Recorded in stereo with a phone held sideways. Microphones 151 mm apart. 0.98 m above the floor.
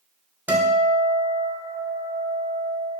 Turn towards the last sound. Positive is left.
turn(degrees=-15)  # may be behind; listen again after turning